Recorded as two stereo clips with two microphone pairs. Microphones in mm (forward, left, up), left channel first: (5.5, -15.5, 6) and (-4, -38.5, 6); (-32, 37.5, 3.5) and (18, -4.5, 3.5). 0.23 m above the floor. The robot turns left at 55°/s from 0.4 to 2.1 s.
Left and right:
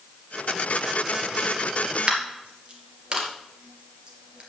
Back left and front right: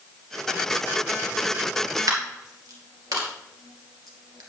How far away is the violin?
I don't hear a violin.